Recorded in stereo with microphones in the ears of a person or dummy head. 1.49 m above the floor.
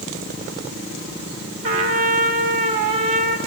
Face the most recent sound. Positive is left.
turn(degrees=-30)  # may be behind; listen again after turning